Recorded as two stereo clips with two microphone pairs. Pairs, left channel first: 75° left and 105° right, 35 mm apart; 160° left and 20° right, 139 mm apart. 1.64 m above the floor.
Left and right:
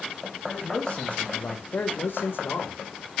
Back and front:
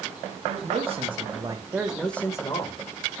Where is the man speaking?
15° left, 3 m; by 2.8 s 110° left, 1.8 m.